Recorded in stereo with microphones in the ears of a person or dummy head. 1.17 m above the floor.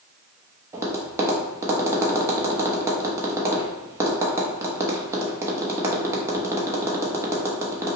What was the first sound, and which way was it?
Tapping, 20° right (ahead or behind).